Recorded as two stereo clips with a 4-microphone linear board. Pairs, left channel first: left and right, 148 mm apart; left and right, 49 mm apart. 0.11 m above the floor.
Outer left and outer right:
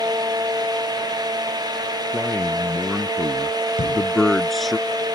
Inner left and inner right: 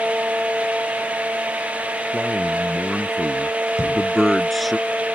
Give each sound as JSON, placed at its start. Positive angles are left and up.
{"t": 2.1, "sound": "a man speaking", "side_deg": 10}
{"t": 3.8, "sound": "a thud", "side_deg": 60}